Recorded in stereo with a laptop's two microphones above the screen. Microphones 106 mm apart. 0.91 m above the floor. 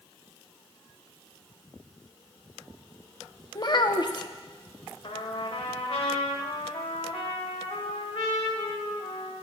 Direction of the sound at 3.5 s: 45° left (ahead or behind).